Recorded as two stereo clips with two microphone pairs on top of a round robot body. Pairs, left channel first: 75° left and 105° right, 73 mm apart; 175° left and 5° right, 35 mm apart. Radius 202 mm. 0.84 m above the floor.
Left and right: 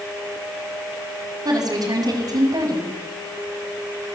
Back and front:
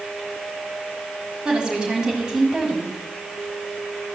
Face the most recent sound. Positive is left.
turn(degrees=-75)